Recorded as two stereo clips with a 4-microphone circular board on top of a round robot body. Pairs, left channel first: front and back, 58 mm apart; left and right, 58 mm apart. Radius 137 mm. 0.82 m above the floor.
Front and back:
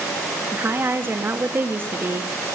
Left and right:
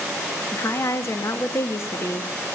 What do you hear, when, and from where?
0.5 s a woman speaking: 125° left, 1.4 m